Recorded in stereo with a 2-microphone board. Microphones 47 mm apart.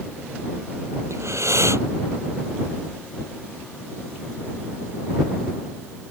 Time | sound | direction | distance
1.1 | breathing | 75° right (ahead or behind) | ?